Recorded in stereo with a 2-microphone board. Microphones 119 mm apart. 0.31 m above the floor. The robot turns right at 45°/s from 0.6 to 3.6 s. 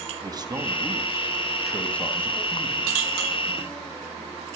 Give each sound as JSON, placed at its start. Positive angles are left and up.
{"t": 0.2, "sound": "a man speaking", "azimuth_deg": -45, "distance_m": 2.5}